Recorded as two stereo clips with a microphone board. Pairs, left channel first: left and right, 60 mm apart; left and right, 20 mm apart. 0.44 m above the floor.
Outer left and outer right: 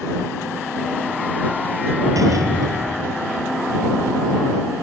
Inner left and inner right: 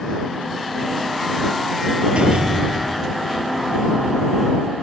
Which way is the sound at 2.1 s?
70° right (ahead or behind).